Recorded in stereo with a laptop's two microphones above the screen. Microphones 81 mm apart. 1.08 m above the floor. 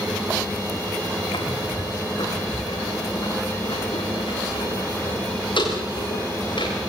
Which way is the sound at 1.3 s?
75° left (ahead or behind).